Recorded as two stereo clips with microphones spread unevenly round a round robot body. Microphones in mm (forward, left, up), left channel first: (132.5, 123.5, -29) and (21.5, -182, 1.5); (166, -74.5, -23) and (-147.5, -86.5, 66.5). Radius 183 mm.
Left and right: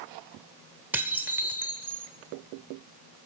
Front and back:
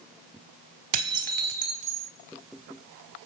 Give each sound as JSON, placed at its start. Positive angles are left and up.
{"t": 0.9, "sound": "dishes clattering", "azimuth_deg": 165, "distance_m": 1.1}